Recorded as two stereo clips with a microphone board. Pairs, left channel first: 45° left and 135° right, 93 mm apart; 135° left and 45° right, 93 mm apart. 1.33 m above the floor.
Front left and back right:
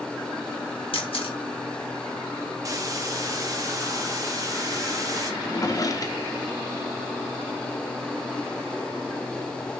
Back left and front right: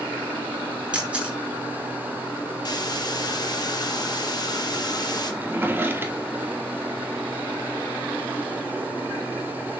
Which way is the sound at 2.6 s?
175° left.